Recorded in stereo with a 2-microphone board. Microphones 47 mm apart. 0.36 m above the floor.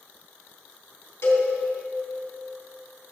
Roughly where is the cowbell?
Left.